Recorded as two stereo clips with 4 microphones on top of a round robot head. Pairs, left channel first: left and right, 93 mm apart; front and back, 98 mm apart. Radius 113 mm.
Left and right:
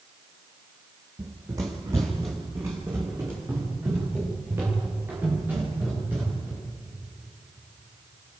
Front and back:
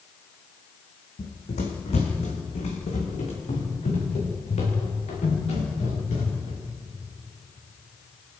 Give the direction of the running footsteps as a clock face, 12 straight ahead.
1 o'clock.